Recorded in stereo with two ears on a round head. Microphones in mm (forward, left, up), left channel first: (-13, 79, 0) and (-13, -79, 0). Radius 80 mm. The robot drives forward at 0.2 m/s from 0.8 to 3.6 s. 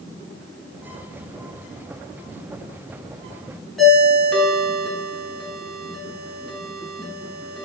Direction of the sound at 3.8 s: Centre (ahead or behind).